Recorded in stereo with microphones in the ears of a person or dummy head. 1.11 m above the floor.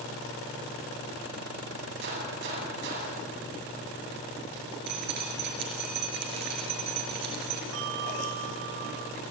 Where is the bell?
70° right (ahead or behind), 1.6 m.